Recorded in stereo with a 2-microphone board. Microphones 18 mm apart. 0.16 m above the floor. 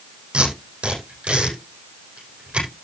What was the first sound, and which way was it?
Tape being pulled, 80° right.